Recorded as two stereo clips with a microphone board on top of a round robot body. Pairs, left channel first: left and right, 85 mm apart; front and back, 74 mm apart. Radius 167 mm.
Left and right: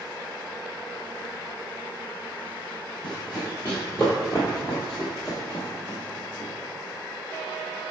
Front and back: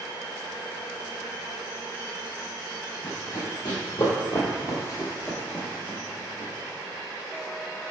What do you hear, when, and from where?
3.0 s running footsteps: 10° left, 1.2 m; by 6.5 s 155° left, 1.2 m